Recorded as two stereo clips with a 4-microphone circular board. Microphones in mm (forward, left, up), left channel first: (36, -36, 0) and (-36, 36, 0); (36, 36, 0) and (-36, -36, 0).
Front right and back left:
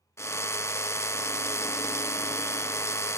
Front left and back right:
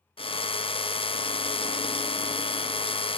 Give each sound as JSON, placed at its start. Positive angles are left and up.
{"t": 0.2, "sound": "a drill", "azimuth_deg": 20, "distance_m": 0.6}